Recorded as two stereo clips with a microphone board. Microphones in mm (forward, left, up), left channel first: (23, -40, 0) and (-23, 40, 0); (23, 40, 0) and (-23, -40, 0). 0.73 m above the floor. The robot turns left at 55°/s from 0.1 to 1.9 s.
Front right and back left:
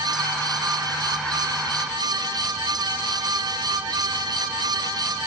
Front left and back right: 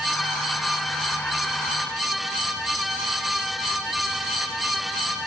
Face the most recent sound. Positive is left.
No sound to turn to.